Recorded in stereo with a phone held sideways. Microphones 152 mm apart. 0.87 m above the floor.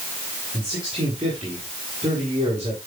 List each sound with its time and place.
0.5 s a man speaking: 30° right (ahead or behind), 8 m